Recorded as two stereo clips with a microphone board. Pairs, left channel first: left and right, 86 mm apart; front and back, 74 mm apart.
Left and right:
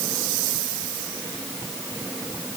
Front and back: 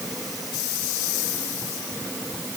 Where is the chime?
No chime in this recording.